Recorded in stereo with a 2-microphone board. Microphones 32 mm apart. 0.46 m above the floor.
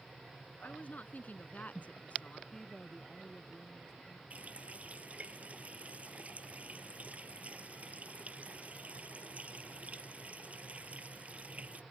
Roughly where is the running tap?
Right.